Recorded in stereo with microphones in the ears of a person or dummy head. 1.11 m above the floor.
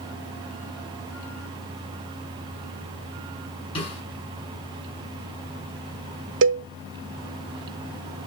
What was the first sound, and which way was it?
A snare drum, 30° left (ahead or behind).